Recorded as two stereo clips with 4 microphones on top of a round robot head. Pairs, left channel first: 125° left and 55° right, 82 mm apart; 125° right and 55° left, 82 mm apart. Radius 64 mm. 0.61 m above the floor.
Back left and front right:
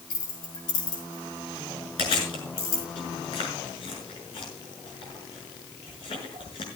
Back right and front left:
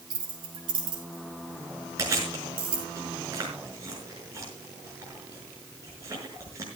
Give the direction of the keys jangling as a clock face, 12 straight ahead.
9 o'clock.